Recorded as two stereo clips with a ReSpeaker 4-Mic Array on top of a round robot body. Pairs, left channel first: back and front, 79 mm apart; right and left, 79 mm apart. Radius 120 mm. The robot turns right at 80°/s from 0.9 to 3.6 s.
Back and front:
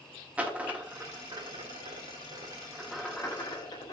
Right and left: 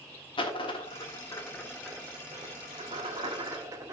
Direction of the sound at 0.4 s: 75° right.